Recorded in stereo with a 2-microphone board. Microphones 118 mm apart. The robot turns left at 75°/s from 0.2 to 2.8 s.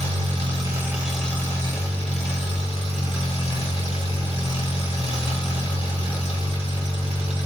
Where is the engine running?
110° right, 1.0 m; by 7.5 s 55° left, 1.0 m.